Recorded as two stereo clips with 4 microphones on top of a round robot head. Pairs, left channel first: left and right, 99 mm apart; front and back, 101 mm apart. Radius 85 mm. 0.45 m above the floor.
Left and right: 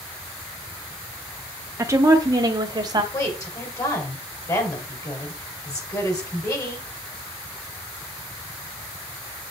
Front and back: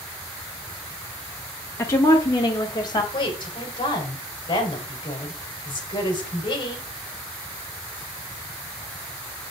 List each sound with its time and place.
1.8 s a woman speaking: 45° right, 0.8 m
3.1 s a woman speaking: 40° left, 3.5 m